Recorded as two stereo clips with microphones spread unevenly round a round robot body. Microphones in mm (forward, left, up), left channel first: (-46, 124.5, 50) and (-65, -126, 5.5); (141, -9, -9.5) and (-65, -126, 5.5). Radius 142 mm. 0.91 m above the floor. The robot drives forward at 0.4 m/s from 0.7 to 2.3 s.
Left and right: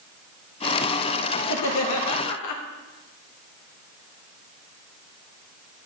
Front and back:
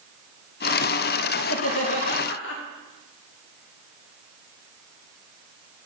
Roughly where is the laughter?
Ahead left.